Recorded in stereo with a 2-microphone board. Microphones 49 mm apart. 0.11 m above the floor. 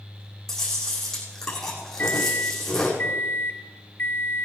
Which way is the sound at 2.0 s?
40° left (ahead or behind).